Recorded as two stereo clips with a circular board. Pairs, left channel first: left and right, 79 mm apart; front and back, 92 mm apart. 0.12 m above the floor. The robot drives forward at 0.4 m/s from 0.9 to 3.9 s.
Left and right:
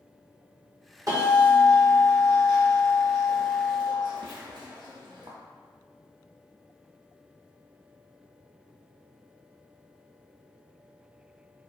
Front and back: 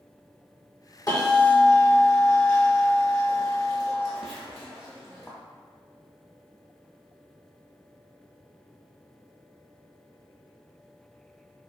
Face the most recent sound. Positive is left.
turn(degrees=-90)